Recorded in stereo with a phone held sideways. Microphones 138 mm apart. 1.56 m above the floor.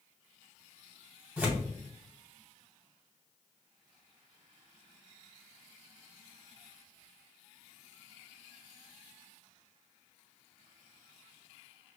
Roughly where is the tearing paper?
Centre.